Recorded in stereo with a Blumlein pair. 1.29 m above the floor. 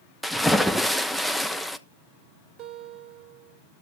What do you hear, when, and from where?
0.2 s a splash: straight ahead, 0.9 m
2.6 s a guitar: 35° right, 2.5 m